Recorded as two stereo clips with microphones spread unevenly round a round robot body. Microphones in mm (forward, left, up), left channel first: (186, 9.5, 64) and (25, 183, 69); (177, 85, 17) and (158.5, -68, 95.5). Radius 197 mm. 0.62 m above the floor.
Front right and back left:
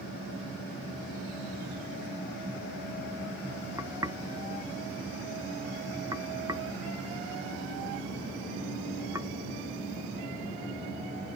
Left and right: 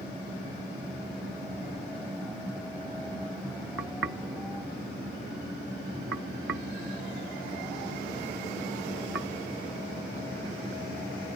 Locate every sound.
3.8 s knocking: 145° right